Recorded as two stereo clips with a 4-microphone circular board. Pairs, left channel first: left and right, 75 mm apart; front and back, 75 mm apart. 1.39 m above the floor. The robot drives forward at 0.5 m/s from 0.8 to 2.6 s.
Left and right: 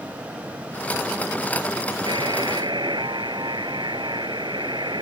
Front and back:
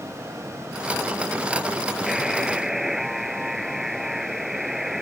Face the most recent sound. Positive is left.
turn(degrees=-95)